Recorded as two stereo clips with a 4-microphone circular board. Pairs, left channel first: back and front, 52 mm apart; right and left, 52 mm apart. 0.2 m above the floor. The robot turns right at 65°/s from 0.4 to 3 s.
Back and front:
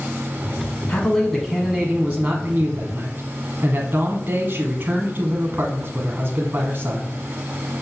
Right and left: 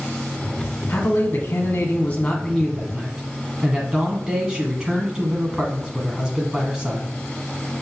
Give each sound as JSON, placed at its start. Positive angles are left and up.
{"t": 0.9, "sound": "a man speaking", "azimuth_deg": -125, "distance_m": 1.3}